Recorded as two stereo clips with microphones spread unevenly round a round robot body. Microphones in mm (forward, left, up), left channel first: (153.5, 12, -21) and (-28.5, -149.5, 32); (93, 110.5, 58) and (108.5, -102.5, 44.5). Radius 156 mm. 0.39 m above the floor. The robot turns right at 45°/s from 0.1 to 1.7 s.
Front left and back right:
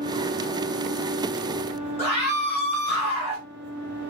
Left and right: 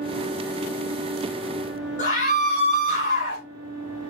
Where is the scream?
150° left, 2 m.